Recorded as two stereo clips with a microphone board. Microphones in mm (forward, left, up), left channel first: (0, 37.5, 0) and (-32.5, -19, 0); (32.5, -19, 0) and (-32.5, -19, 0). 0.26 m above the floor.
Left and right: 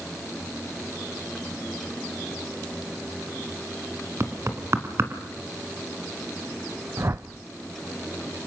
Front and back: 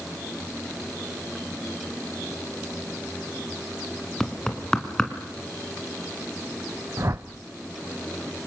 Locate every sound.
4.2 s knocking: 80° right, 2.5 m
7.0 s a whoosh: 155° right, 0.8 m